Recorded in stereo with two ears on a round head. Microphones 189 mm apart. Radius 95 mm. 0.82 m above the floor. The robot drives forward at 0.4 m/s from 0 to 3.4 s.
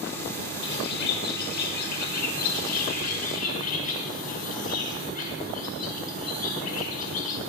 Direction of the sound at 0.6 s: 60° left (ahead or behind).